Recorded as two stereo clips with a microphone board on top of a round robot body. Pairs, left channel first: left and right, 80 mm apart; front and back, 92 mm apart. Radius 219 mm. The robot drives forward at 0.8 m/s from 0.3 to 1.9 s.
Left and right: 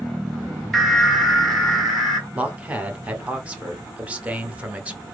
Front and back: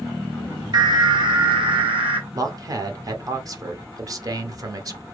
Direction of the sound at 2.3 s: 155° right.